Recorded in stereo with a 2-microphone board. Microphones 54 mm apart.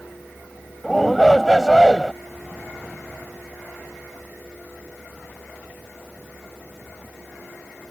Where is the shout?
Centre (ahead or behind).